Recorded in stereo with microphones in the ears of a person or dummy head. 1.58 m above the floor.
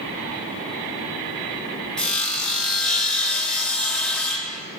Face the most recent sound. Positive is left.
turn(degrees=5)  # may be behind; listen again after turning